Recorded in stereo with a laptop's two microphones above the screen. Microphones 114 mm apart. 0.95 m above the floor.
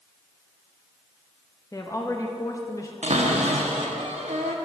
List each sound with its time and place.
1.7 s a woman speaking: 30° left (ahead or behind), 0.7 m
3.0 s a cupboard door: 80° right, 0.9 m